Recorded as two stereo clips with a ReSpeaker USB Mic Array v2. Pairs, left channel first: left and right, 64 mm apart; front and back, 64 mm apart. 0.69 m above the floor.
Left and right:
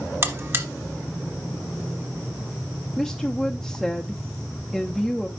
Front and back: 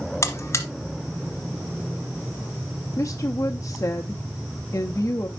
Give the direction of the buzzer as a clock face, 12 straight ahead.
1 o'clock.